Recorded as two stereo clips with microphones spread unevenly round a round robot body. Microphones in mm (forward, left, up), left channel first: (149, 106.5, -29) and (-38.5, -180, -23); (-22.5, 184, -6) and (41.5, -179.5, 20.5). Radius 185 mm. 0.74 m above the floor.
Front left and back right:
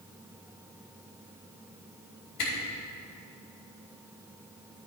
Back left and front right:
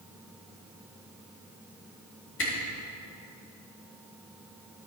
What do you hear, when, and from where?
2.4 s a camera shutter: 45° left, 3.5 m